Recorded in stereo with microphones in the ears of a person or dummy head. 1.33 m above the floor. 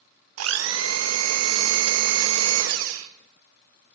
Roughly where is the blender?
Right.